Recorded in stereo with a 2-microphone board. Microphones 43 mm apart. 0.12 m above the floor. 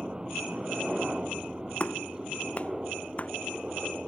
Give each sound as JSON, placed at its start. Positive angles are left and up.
{"t": 0.0, "sound": "a helicopter", "side_deg": -15}
{"t": 1.8, "sound": "a clap", "side_deg": 30}